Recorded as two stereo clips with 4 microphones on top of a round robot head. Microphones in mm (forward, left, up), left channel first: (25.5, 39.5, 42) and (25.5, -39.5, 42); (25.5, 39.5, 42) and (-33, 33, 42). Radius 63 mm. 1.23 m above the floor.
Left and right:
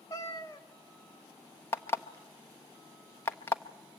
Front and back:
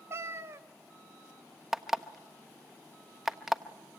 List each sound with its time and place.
0.1 s a cat meowing: 150° left, 0.9 m
1.7 s an alarm clock: 115° left, 0.5 m